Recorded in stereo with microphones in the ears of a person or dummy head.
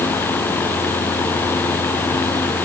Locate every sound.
Only background noise.